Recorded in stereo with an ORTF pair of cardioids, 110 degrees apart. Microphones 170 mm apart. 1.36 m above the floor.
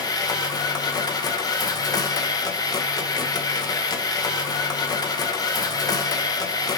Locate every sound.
0.0 s a machine running: 20° left, 1.8 m